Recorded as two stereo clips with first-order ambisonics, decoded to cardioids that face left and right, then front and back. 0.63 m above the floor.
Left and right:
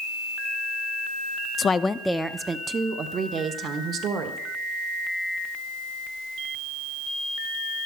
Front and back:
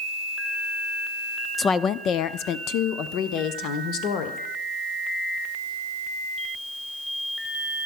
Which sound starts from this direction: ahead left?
A woman speaking, at 1.6 s.